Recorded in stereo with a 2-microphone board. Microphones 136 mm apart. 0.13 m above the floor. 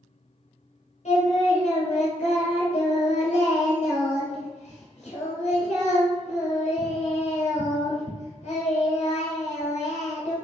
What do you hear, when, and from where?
1.1 s singing: 60° left (ahead or behind), 1.6 m